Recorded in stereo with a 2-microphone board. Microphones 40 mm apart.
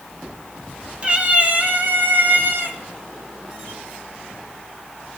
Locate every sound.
1.0 s a cat meowing: 30° right (ahead or behind), 2 m; by 2.8 s 65° right (ahead or behind), 1.9 m